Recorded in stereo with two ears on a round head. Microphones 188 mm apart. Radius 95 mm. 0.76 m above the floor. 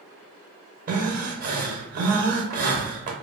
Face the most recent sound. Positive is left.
turn(degrees=-40)  # may be behind; listen again after turning